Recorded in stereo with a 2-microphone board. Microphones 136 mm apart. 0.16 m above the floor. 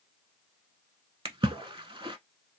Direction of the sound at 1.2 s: 40° right (ahead or behind).